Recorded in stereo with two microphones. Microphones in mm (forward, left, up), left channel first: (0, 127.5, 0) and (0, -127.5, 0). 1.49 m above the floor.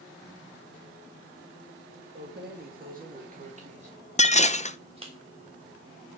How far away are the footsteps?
I don't hear footsteps.